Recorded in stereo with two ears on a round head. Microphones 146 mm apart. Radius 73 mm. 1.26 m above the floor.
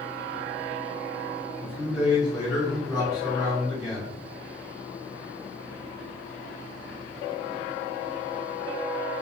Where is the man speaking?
5° right (ahead or behind), 1.5 m.